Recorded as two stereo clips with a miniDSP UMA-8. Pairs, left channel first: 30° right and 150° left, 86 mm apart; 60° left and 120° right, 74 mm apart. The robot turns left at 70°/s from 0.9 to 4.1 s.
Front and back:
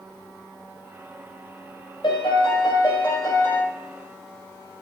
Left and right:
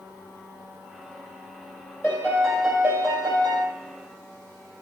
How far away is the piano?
About 3 m.